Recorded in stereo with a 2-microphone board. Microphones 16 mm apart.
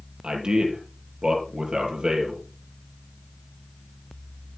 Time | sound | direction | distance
0.2 | a man speaking | 60° right (ahead or behind) | 5 m